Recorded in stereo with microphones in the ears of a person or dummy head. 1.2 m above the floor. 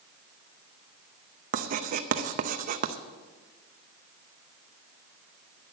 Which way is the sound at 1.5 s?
45° right (ahead or behind).